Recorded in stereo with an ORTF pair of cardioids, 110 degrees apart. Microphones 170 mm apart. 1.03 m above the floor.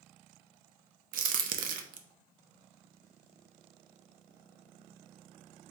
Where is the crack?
55° right, 0.6 m.